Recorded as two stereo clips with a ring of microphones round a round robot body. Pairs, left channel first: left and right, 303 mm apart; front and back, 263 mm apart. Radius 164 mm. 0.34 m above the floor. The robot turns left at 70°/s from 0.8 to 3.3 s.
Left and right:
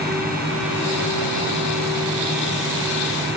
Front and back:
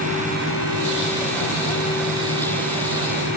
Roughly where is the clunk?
I don't hear a clunk.